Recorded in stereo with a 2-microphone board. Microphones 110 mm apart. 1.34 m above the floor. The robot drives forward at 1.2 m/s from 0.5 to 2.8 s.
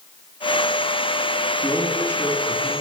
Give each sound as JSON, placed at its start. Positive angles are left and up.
{"t": 1.6, "sound": "a man speaking", "side_deg": 30, "distance_m": 3.0}